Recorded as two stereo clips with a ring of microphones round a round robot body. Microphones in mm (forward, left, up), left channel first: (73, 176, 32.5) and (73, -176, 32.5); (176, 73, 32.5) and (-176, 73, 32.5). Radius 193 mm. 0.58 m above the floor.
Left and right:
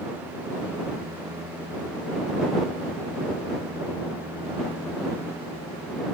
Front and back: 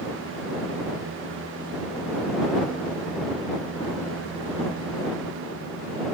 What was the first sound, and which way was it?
Only background noise.